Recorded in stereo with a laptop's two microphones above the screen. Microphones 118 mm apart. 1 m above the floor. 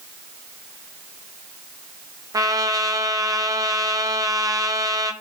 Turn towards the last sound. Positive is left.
turn(degrees=-30)  # may be behind; listen again after turning